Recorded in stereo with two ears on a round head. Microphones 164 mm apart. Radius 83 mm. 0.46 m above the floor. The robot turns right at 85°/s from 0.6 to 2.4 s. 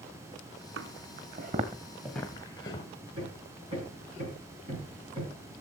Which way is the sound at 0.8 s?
70° right (ahead or behind).